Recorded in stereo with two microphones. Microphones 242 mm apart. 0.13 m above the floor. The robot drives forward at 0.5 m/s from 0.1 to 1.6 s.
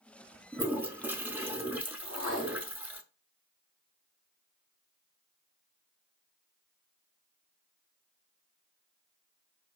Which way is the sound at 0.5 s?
5° right (ahead or behind).